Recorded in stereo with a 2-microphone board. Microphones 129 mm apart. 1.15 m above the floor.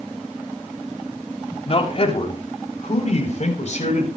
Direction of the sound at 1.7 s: 45° left (ahead or behind).